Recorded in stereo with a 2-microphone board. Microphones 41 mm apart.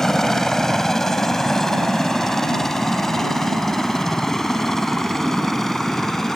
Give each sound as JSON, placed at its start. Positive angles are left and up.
{"t": 0.0, "sound": "a helicopter", "side_deg": 10}